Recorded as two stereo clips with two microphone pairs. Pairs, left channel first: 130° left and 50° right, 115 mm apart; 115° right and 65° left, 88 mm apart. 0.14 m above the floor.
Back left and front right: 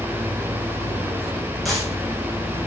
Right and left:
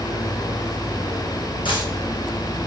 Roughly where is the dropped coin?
Behind right.